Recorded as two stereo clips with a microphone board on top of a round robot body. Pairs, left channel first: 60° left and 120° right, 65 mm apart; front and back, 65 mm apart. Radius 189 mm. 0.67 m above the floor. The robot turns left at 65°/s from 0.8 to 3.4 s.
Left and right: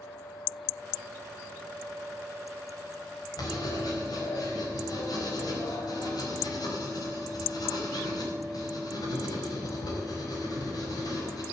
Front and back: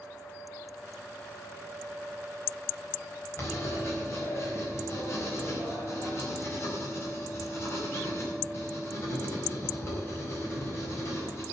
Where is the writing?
50° left, 4.5 m; by 11.4 s 45° left, 4.5 m.